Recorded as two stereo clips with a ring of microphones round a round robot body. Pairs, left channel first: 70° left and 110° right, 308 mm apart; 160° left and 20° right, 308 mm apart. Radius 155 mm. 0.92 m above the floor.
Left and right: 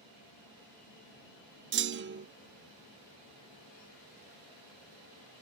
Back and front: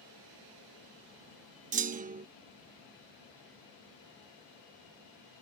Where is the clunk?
75° right.